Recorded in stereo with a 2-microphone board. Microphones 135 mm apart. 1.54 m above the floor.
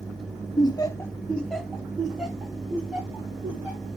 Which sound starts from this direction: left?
Laughter, at 0.6 s.